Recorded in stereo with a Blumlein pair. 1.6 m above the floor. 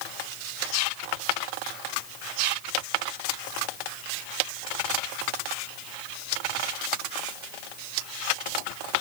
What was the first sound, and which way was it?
Only background noise.